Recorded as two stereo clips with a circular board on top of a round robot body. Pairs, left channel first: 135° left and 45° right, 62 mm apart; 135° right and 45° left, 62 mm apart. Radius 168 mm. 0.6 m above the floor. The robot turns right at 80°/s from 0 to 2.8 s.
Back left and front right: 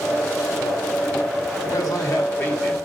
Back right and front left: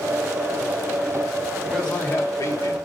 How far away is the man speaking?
About 3 m.